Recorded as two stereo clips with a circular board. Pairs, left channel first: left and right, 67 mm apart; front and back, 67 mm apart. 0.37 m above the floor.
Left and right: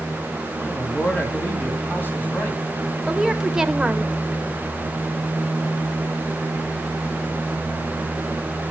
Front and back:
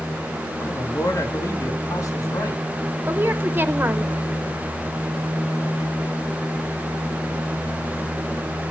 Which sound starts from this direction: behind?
A woman speaking, at 3.1 s.